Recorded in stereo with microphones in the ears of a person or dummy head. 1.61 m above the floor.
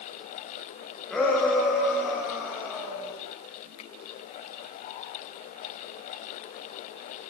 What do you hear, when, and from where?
1.1 s a shout: 10° left (ahead or behind), 6.5 m; by 3.1 s 10° right (ahead or behind), 8 m
3.8 s a finger snap: 35° left (ahead or behind), 1.9 m